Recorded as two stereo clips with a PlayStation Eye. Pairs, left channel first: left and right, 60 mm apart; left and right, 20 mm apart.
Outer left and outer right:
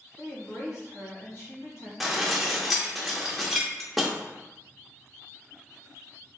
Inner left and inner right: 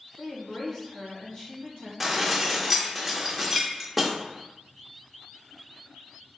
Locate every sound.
0.2 s a woman speaking: 55° left (ahead or behind), 2 m
2.0 s dishes clattering: centre (ahead or behind), 0.8 m